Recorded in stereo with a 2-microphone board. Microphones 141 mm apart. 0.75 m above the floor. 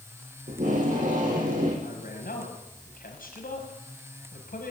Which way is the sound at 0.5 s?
65° right (ahead or behind).